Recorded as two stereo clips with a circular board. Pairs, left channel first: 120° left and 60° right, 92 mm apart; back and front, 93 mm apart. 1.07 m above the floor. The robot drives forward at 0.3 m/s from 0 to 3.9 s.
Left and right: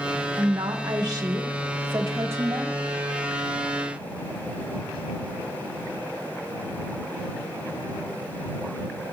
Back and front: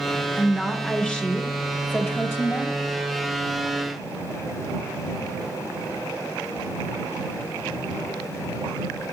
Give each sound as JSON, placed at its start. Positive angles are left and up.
{"t": 0.4, "sound": "a woman speaking", "azimuth_deg": -90, "distance_m": 1.5}